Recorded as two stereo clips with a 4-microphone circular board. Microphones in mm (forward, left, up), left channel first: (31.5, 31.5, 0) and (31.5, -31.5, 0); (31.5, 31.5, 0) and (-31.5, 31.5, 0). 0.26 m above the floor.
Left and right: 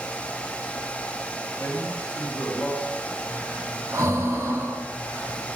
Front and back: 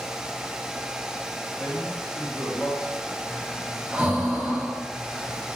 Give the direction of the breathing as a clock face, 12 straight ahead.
4 o'clock.